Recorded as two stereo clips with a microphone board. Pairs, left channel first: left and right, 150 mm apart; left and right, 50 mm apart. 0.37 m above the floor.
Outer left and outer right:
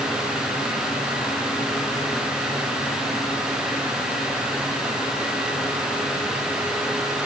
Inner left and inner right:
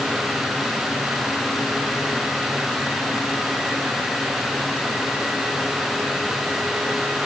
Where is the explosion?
I don't hear an explosion.